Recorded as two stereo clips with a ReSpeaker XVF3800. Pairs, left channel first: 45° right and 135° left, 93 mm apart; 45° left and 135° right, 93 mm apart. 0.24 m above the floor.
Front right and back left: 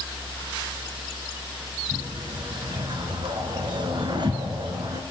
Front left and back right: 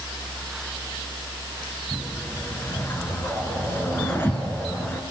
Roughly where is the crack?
No crack in this recording.